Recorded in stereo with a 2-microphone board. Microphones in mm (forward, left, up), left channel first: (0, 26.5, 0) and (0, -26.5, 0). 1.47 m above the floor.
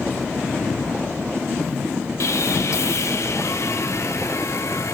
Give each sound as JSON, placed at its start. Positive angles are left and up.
{"t": 2.2, "sound": "sawing", "side_deg": 65, "distance_m": 1.3}